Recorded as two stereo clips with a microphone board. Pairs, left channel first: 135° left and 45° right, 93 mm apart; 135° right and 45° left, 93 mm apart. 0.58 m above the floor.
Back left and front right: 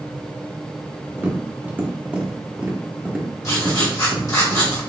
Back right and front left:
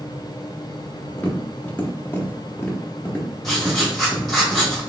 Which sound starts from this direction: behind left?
Writing, at 3.4 s.